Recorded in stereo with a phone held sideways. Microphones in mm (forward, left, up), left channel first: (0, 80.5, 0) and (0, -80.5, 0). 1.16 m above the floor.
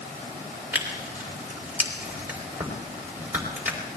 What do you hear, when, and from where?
0.7 s tearing paper: 10° right (ahead or behind), 4 m